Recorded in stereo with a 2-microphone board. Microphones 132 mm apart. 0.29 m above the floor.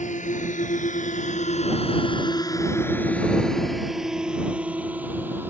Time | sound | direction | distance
0.0 | a drone | 70° left (ahead or behind) | ?